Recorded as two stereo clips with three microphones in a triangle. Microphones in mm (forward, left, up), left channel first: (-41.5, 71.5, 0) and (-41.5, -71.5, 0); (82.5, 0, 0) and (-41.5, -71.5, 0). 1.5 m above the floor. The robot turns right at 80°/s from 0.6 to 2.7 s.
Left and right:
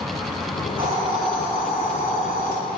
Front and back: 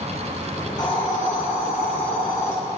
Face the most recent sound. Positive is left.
turn(degrees=120)